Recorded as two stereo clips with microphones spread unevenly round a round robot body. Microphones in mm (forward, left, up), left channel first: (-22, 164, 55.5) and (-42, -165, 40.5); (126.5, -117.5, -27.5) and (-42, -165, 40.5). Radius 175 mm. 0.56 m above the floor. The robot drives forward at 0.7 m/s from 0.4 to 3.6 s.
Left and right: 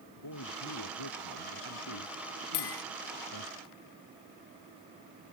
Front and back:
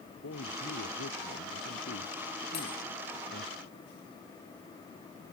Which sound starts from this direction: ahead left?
A man speaking, at 0.2 s.